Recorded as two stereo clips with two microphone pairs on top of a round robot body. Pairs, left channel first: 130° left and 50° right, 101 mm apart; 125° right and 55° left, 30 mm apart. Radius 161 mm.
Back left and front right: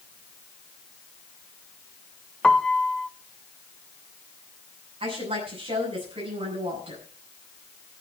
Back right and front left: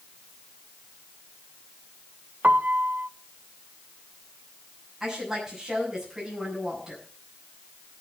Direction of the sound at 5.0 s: 25° right.